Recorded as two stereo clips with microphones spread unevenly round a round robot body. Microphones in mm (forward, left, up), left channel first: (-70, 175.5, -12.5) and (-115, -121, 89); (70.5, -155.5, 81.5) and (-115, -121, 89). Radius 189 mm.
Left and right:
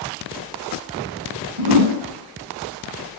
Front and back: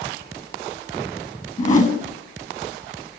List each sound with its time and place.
1.6 s a whoosh: 60° right, 3.5 m